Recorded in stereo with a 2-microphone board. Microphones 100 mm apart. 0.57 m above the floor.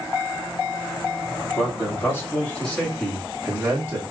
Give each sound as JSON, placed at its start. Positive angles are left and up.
{"t": 1.6, "sound": "a man speaking", "side_deg": 25, "distance_m": 2.0}